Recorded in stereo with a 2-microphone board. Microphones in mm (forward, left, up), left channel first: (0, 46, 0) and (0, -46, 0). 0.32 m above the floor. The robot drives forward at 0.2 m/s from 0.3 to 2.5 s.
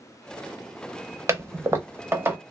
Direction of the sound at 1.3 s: 30° right (ahead or behind).